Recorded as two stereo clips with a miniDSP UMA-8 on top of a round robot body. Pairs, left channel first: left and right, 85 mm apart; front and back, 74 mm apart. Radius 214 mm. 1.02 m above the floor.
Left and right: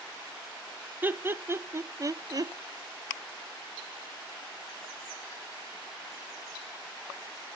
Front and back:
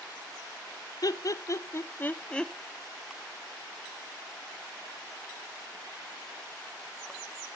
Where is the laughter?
25° right, 1.3 m; by 2.5 s 80° right, 0.9 m.